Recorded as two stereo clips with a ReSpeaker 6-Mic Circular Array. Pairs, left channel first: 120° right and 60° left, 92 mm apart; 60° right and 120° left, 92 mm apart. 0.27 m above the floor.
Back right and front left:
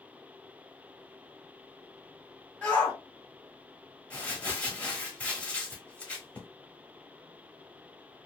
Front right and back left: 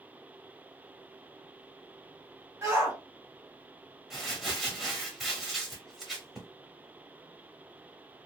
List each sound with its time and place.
2.6 s a shout: 165° left, 1.8 m
4.1 s crumpling: 160° right, 0.9 m